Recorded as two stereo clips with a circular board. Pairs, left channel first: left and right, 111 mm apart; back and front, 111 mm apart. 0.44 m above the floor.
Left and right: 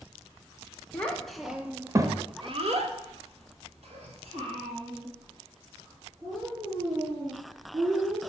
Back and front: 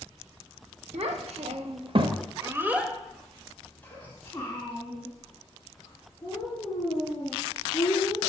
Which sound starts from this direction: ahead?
A child speaking, at 0.9 s.